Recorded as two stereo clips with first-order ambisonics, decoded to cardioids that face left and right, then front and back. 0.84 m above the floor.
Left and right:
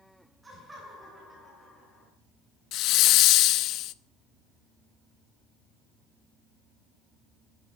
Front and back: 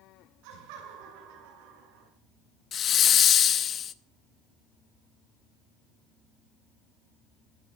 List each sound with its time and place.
0.4 s laughter: 170° right, 8 m; by 2.1 s 175° left, 8 m
2.7 s a hiss: 60° left, 0.7 m